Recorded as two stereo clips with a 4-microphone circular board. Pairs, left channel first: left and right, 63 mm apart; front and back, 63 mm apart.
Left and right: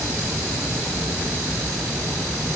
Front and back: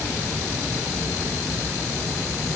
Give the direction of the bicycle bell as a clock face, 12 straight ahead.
I don't hear a bicycle bell.